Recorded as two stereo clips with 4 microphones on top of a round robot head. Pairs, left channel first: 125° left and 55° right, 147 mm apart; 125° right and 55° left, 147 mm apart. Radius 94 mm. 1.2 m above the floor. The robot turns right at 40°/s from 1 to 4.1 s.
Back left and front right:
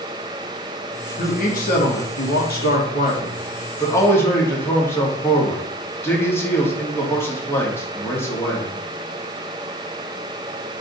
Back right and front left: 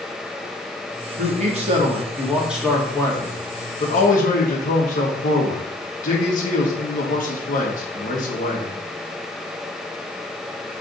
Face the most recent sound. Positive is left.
turn(degrees=-160)